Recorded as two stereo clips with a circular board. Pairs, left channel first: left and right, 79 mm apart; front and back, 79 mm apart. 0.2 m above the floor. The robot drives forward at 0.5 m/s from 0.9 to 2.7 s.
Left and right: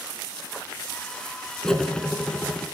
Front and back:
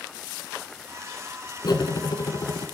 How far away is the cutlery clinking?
About 1.2 m.